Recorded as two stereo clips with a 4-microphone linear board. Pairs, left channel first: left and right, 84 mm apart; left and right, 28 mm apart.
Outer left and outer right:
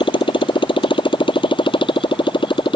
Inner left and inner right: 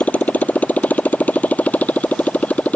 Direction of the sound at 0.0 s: 90° left.